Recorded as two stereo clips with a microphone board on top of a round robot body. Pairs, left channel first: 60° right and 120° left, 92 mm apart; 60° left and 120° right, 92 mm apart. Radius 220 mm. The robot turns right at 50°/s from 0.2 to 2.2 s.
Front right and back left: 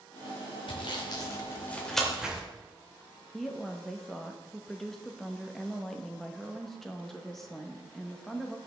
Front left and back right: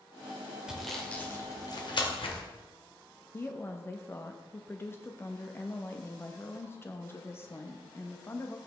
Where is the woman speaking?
25° left, 1.2 m.